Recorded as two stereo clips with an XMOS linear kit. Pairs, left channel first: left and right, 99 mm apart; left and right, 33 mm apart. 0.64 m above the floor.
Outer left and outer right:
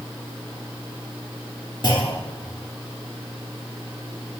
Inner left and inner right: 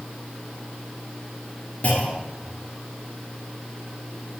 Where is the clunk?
50° left (ahead or behind), 3 m.